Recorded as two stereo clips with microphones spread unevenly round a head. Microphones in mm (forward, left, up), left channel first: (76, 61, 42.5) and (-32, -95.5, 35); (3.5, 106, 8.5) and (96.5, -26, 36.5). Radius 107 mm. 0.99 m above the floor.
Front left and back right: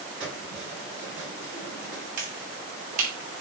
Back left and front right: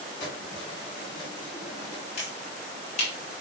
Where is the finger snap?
175° right, 5.5 m.